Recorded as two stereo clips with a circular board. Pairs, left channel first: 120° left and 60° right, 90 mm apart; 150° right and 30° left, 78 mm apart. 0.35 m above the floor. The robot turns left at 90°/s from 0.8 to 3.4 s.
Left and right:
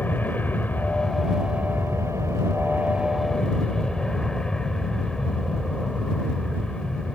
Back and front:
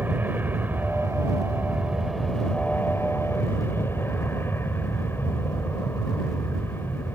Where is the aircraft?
70° left; by 7.2 s 165° right.